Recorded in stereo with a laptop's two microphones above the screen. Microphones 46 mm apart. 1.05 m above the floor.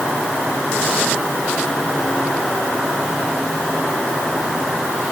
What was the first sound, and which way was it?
Only background noise.